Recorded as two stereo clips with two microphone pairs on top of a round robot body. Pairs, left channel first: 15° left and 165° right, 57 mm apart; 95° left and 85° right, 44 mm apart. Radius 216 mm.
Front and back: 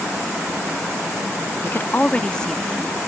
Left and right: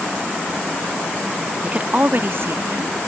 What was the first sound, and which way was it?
A woman speaking, 25° right.